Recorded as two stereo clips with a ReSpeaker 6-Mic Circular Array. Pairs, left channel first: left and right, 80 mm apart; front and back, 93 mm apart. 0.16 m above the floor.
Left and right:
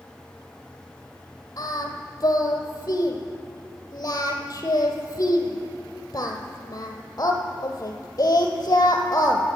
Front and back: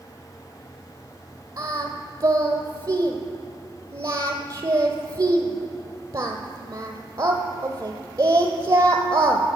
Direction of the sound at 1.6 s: 135° left.